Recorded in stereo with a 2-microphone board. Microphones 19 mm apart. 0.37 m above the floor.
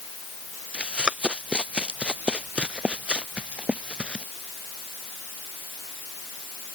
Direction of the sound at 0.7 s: 85° right.